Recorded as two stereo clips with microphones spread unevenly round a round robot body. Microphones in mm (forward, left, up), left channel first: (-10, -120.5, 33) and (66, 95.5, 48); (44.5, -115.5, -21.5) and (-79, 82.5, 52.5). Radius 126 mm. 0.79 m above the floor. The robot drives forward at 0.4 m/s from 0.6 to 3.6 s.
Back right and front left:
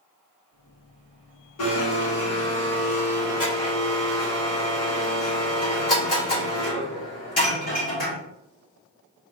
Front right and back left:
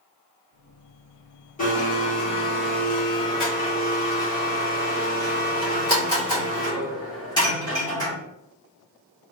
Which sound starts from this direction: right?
A blender, at 1.6 s.